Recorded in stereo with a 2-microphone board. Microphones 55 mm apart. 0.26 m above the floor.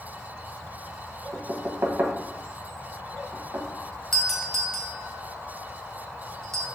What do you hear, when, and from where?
1.3 s knocking: 45° right (ahead or behind), 0.9 m
4.1 s a doorbell: 5° left (ahead or behind), 1.4 m